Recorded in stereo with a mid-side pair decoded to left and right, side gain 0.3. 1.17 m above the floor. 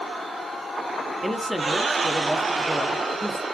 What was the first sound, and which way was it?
A man speaking, straight ahead.